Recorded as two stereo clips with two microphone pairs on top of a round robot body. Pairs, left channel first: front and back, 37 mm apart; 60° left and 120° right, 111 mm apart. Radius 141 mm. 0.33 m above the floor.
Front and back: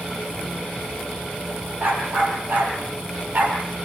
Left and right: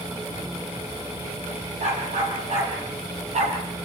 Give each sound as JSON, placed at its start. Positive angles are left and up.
{"t": 1.8, "sound": "a dog barking", "azimuth_deg": -135, "distance_m": 7.0}